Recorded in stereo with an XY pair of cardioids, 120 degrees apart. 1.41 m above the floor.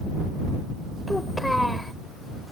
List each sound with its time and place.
1.1 s a child speaking: 5° left